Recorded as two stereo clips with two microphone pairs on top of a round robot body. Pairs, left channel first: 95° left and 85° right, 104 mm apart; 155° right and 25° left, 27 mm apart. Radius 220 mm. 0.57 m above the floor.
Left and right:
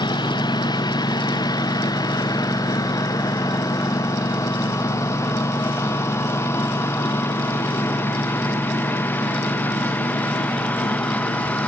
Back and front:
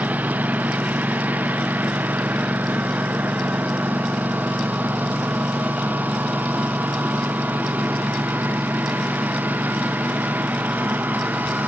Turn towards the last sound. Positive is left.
turn(degrees=20)